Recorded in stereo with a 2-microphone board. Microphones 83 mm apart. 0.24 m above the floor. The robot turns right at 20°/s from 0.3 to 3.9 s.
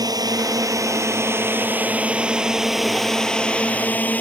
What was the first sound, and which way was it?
A drone, 50° right.